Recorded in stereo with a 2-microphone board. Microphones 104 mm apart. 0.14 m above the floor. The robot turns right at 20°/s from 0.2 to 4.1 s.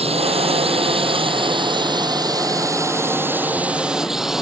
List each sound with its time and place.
0.0 s a drone: 85° right; by 4.4 s 5° right